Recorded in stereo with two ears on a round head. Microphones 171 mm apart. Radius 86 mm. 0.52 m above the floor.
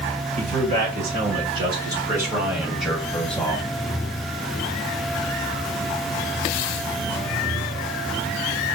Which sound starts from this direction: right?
A man speaking, at 0.4 s.